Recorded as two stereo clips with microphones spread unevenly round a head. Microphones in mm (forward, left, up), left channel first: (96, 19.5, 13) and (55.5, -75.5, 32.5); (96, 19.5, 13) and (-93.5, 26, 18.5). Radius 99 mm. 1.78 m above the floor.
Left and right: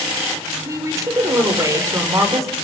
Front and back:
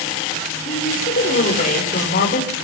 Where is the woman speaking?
55° right, 7.5 m.